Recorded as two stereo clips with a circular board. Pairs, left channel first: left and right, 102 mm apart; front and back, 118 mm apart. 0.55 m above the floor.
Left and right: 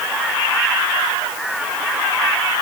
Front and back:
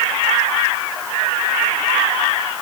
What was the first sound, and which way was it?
Only background noise.